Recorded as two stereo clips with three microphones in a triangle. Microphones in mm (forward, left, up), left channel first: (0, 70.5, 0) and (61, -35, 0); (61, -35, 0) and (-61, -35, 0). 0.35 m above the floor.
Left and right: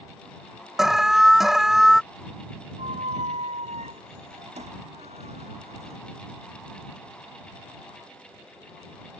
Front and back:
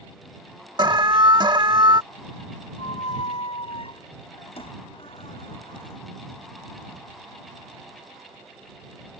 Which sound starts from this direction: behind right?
An alarm, at 0.8 s.